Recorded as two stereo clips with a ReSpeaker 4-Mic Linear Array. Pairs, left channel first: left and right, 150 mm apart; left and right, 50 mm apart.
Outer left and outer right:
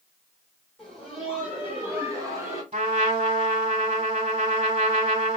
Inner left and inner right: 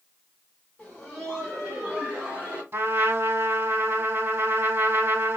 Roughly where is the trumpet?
Right.